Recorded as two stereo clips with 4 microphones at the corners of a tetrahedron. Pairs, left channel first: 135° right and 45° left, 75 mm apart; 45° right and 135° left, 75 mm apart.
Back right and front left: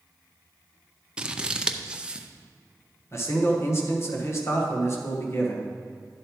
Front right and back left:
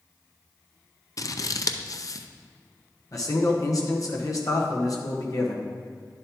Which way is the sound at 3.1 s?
85° right.